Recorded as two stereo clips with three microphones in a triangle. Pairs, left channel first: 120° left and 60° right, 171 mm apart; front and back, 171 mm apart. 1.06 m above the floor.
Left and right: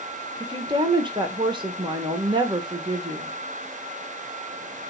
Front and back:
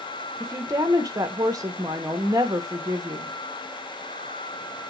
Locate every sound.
0.4 s a woman speaking: 115° right, 1.0 m